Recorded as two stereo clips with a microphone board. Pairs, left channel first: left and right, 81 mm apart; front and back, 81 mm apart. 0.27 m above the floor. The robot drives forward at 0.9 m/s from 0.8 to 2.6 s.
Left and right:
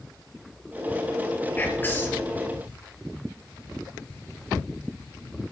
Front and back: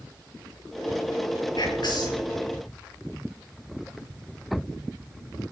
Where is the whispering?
25° left, 4.5 m.